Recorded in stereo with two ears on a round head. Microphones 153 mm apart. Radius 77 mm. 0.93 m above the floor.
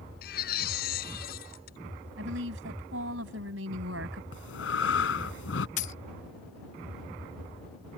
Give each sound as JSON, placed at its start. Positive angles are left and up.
{"t": 0.2, "sound": "a baby crying", "side_deg": 55}
{"t": 2.2, "sound": "a woman speaking", "side_deg": -75}
{"t": 4.3, "sound": "breathing", "side_deg": 75}
{"t": 5.8, "sound": "a dropped coin", "side_deg": 45}